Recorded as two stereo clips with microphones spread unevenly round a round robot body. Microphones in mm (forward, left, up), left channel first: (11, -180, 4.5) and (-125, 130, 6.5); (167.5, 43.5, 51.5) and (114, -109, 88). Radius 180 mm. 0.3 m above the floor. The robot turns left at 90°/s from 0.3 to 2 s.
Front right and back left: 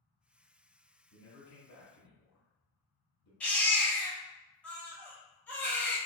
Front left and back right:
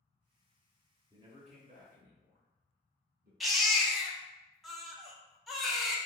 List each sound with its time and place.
1.1 s a man speaking: 25° right, 1.1 m; by 3.3 s 105° right, 1.1 m
3.4 s a baby crying: 15° left, 0.8 m